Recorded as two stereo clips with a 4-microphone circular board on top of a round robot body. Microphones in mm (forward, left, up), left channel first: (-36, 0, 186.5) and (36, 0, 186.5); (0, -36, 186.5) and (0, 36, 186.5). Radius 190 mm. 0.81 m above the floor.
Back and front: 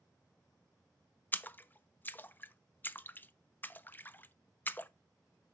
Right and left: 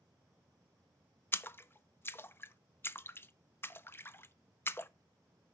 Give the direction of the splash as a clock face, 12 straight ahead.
4 o'clock.